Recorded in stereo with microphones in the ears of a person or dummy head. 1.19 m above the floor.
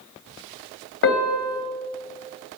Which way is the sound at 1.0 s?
50° left (ahead or behind).